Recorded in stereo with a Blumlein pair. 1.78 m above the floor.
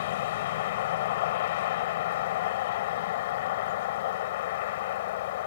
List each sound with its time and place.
0.0 s a vehicle: 55° left